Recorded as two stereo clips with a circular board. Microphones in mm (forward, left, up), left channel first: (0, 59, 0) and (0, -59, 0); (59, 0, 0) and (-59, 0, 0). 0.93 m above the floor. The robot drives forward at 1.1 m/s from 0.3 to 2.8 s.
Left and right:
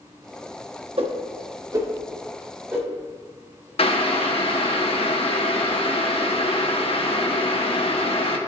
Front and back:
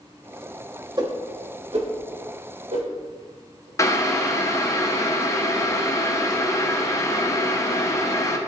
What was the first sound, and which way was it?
A whoosh, 125° right.